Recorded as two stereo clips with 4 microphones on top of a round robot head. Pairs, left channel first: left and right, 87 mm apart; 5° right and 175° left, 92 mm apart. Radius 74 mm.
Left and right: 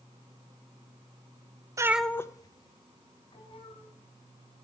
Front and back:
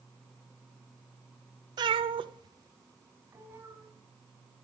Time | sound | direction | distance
1.8 | a cat meowing | 140° right | 0.6 m